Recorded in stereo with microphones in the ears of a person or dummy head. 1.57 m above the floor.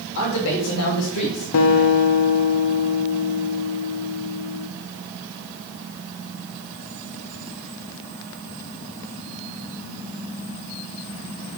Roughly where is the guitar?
Left.